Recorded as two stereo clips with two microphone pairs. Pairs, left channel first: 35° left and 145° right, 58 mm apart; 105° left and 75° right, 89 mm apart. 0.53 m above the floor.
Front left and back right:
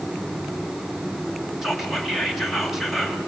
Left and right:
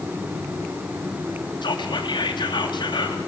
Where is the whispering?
130° left, 3.5 m.